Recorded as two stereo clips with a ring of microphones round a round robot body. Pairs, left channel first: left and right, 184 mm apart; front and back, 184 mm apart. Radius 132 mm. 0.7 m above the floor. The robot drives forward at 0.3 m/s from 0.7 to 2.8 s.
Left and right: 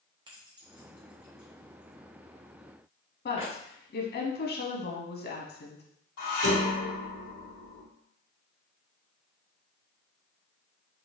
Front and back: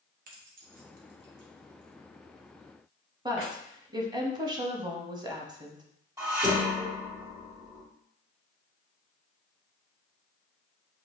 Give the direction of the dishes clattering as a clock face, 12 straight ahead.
8 o'clock.